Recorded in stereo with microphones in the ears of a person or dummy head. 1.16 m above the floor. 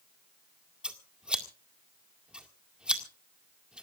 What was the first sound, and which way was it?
Scissors, 5° right (ahead or behind).